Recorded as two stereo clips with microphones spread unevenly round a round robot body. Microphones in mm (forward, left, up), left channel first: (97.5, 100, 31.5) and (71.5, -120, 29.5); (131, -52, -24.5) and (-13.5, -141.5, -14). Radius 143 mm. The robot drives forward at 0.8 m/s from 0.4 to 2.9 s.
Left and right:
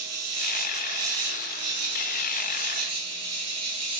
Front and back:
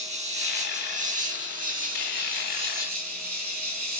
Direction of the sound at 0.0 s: 100° right.